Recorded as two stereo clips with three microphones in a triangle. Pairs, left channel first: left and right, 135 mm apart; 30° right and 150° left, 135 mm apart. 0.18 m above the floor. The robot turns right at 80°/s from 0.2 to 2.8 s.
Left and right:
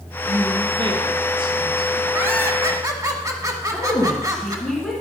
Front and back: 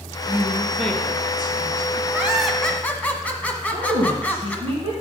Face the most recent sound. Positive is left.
turn(degrees=175)